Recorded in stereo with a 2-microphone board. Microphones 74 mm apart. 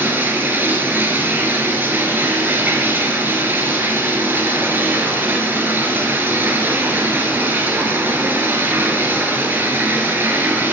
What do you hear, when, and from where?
0.0 s running water: 25° right (ahead or behind), 1.7 m